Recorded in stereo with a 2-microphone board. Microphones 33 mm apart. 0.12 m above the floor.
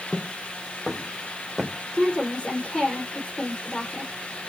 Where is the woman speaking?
35° left (ahead or behind), 4 m.